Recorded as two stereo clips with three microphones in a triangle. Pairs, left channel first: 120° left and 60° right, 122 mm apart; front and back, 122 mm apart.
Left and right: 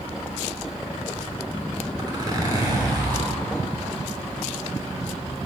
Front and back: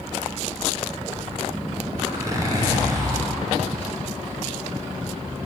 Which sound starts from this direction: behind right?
A zipper, at 2.0 s.